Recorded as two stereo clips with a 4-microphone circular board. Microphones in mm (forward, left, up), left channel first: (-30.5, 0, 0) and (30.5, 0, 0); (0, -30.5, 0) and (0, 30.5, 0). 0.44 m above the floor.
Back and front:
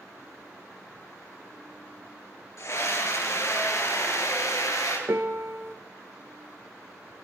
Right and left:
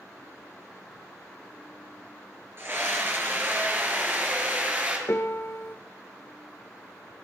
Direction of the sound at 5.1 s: 40° right.